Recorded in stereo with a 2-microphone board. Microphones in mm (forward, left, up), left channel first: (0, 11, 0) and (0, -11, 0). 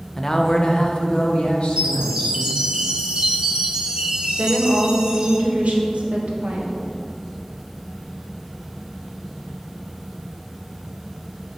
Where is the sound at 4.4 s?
75° right (ahead or behind), 1.2 m.